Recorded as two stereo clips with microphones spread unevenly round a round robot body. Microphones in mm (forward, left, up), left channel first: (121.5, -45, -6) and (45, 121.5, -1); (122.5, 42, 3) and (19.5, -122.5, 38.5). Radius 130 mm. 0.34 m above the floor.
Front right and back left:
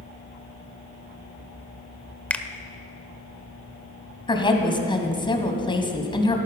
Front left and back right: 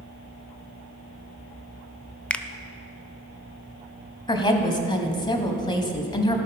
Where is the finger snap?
5° left, 0.6 m.